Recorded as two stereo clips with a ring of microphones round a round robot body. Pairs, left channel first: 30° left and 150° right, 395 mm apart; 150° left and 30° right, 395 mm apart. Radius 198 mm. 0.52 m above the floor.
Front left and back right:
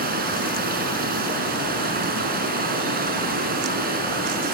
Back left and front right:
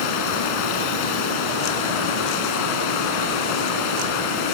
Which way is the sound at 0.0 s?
140° left.